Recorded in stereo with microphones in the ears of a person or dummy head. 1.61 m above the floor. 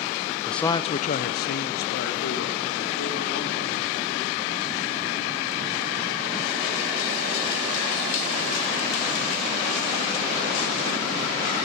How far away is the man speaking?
About 0.7 m.